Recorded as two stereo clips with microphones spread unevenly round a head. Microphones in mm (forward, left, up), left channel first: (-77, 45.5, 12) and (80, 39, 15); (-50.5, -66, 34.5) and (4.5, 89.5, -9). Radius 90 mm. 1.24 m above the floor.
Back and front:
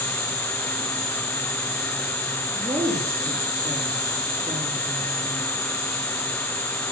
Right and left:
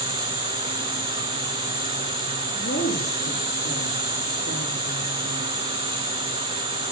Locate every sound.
0.0 s an insect: 125° right, 7.5 m
2.5 s a woman speaking: 80° right, 3 m